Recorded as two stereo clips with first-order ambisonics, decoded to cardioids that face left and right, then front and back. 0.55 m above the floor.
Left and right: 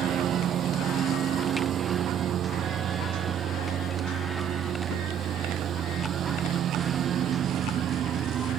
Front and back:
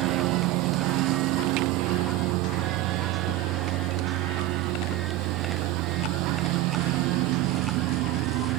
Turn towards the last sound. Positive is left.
turn(degrees=-150)